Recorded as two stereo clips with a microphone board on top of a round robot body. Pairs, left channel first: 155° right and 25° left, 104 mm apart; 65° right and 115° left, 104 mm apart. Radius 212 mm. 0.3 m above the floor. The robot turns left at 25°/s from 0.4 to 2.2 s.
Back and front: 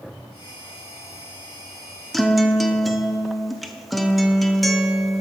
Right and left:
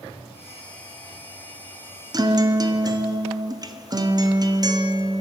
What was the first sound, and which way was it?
A guitar, 115° left.